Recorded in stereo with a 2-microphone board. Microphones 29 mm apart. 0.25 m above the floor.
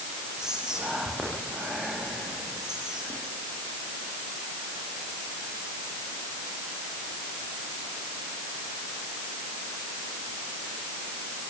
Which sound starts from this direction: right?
Whispering, at 0.4 s.